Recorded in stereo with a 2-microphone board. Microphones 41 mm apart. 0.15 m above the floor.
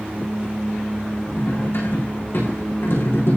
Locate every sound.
1.4 s cutlery clinking: 65° left (ahead or behind), 5 m